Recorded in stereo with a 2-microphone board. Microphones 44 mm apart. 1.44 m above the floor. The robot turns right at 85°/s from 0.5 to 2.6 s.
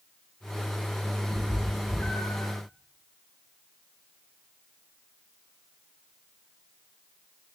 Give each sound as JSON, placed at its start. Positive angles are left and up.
{"t": 1.3, "sound": "a cat meowing", "side_deg": -25, "distance_m": 6.5}